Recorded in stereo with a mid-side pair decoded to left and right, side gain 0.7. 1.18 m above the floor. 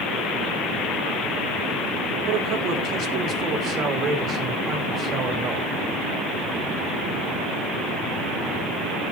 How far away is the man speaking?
About 3.5 m.